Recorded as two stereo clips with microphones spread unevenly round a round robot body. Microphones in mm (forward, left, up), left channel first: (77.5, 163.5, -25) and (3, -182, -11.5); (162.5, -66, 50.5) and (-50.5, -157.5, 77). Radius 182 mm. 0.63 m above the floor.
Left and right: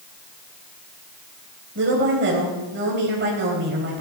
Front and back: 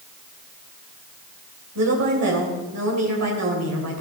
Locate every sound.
1.8 s a woman speaking: 165° right, 3 m